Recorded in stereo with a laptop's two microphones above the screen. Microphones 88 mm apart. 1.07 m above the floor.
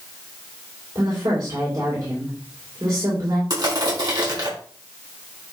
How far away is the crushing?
About 4.5 m.